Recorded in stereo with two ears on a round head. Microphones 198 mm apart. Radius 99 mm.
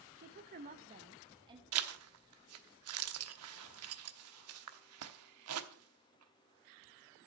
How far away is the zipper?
About 1.0 m.